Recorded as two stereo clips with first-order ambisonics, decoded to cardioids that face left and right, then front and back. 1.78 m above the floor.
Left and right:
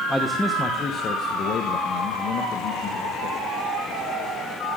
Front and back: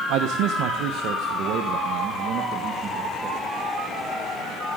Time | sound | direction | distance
0.1 | a man speaking | straight behind | 1.1 m